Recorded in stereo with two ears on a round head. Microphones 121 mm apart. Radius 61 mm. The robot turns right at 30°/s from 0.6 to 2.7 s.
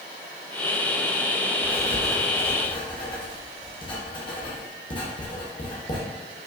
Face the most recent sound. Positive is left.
turn(degrees=35)  # may be behind; listen again after turning